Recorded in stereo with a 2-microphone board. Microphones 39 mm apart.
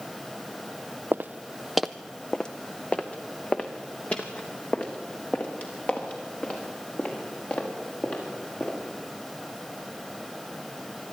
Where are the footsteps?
60° right (ahead or behind), 0.6 m; by 8.8 s 40° left (ahead or behind), 8 m.